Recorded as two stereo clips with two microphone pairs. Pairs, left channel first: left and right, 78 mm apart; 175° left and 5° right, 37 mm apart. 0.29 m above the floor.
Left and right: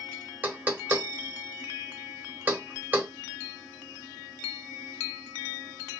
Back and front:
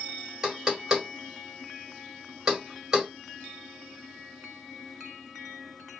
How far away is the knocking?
About 1.0 m.